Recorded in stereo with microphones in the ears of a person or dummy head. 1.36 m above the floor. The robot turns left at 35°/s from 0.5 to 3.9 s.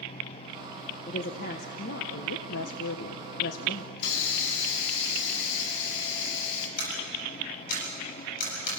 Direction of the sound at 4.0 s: 65° left (ahead or behind).